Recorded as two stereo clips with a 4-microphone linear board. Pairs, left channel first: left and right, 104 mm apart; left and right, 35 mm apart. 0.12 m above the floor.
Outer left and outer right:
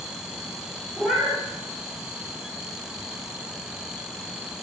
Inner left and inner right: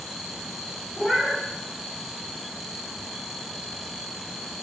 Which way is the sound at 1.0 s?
5° right (ahead or behind).